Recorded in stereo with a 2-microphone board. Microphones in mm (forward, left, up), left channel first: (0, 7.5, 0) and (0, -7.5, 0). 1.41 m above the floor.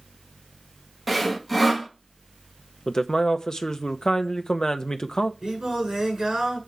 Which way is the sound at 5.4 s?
30° right (ahead or behind).